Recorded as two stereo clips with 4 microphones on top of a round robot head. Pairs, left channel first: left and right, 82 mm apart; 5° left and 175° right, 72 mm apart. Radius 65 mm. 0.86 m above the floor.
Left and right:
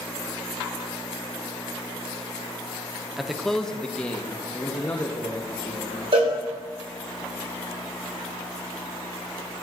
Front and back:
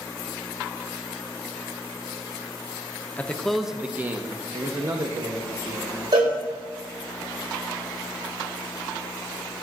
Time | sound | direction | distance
3.2 | a man speaking | 10° right | 0.8 m
6.1 | a cowbell | 130° right | 2.5 m